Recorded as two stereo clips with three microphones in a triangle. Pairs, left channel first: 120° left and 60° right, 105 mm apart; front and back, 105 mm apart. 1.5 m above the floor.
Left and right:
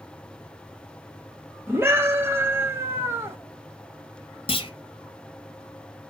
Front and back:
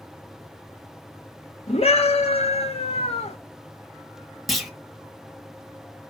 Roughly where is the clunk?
Left.